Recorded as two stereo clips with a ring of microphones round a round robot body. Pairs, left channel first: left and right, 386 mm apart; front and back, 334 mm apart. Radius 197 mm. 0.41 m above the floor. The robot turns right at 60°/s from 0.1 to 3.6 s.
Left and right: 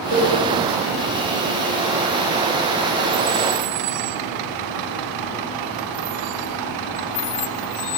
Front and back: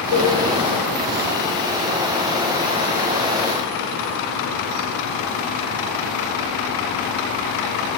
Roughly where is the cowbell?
Right.